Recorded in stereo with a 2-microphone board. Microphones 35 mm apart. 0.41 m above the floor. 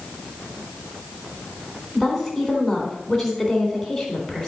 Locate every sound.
1.9 s a woman speaking: 5° left (ahead or behind), 3.5 m